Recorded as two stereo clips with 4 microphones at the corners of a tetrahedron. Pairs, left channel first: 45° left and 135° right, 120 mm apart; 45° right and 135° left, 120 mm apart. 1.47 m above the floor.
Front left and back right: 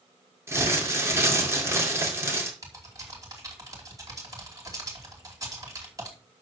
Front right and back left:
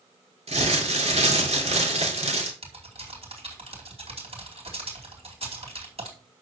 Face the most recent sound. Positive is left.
turn(degrees=165)